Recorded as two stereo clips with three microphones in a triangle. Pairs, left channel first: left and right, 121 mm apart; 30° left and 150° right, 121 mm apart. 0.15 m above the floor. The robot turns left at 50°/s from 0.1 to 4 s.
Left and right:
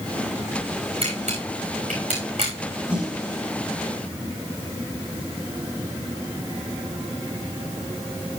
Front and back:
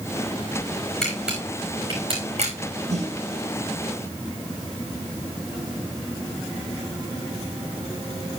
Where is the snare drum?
170° right, 6.5 m; by 3.1 s straight behind, 6.5 m.